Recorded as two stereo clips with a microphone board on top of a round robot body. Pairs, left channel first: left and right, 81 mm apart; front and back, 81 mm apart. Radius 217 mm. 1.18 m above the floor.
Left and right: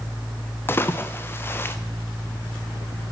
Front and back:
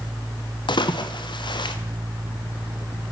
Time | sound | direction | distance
0.7 | a splash | 25° left | 0.9 m